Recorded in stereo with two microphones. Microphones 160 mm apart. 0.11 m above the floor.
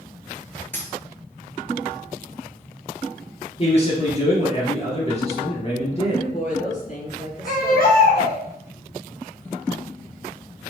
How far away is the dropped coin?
About 0.8 m.